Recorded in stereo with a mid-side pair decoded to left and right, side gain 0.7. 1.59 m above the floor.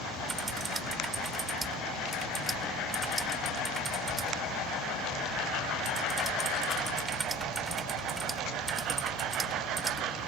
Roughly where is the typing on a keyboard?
Ahead.